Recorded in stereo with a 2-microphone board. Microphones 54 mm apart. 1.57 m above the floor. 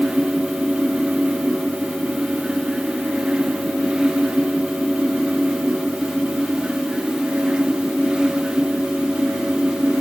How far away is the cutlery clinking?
No cutlery clinking in this recording.